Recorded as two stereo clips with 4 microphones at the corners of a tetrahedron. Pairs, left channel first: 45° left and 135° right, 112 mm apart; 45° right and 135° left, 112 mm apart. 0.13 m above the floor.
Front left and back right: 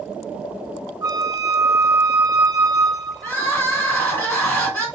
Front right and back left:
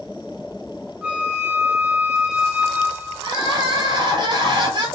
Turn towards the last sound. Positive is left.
turn(degrees=110)